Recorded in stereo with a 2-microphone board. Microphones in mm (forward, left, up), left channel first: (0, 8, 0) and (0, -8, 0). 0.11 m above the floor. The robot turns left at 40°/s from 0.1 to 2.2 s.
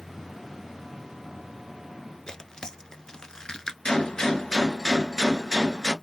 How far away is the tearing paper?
About 0.5 m.